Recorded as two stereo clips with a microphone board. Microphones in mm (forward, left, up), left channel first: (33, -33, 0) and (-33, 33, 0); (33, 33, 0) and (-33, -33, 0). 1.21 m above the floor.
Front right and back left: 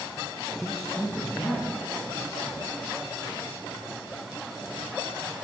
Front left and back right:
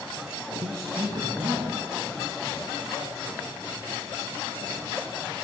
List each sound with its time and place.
0.6 s a man speaking: 140° right, 1.6 m; by 2.6 s 90° right, 4 m